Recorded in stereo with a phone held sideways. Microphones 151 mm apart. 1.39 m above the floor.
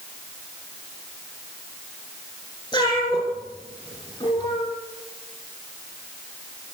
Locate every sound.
2.7 s a cat meowing: 25° left (ahead or behind), 9.5 m